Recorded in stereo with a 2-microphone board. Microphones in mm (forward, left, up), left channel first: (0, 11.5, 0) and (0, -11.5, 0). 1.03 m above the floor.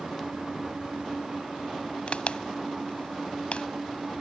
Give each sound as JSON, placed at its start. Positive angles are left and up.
{"t": 2.1, "sound": "a crack", "side_deg": 65}